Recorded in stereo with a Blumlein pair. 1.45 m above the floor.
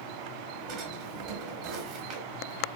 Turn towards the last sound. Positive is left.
turn(degrees=-40)